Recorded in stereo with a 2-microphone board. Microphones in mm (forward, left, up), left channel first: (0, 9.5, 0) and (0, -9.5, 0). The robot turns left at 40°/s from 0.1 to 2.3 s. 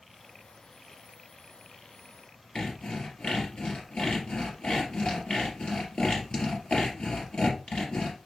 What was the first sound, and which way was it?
Sawing, 65° left (ahead or behind).